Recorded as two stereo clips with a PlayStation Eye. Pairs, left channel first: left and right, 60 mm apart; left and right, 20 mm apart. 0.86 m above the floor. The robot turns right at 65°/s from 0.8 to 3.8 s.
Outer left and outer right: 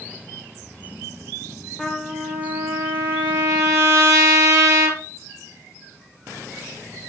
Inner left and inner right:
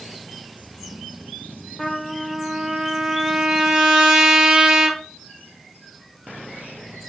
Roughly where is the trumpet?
Behind.